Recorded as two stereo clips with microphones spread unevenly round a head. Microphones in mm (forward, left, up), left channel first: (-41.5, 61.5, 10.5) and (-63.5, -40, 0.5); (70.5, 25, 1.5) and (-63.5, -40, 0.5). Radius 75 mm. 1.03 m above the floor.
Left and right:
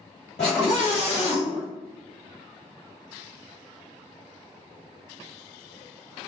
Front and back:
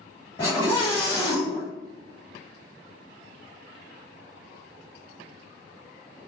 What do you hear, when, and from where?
0.4 s a scream: 90° left, 1.4 m